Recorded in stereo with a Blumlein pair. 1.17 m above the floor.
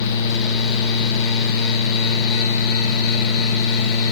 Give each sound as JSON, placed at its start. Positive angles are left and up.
{"t": 0.0, "sound": "a fan", "azimuth_deg": 40, "distance_m": 1.3}